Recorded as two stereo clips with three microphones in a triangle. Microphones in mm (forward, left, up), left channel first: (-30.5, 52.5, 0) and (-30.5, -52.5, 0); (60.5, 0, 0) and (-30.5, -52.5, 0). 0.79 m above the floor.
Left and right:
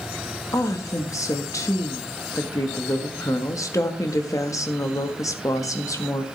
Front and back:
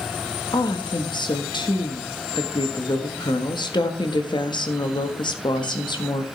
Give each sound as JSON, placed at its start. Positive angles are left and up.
{"t": 0.5, "sound": "a woman speaking", "azimuth_deg": 45, "distance_m": 1.4}